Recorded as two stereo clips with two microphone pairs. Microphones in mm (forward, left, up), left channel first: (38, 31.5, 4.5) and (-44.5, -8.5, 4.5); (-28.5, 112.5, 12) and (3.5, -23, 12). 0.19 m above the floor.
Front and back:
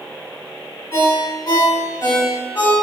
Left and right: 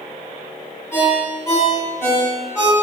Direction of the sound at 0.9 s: 45° left.